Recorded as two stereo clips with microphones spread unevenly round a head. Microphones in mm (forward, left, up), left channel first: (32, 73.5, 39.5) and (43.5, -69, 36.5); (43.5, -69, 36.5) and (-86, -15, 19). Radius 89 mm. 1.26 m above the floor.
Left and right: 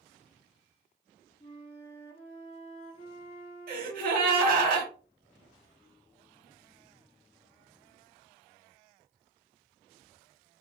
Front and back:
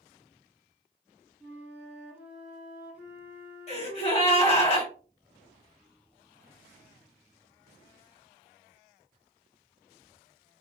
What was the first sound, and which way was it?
A flute, 65° left.